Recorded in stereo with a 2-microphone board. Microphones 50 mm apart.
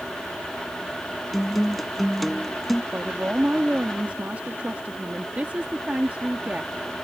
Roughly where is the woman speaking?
Right.